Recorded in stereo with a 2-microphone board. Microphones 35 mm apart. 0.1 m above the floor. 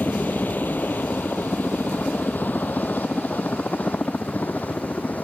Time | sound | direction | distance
0.0 | a helicopter | 60° left (ahead or behind) | ?